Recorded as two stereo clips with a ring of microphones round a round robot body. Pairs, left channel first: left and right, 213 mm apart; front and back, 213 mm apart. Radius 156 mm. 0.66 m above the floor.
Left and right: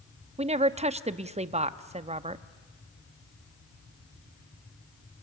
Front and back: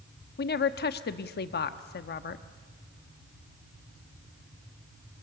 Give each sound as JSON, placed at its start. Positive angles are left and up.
{"t": 0.4, "sound": "a woman speaking", "azimuth_deg": -35, "distance_m": 0.8}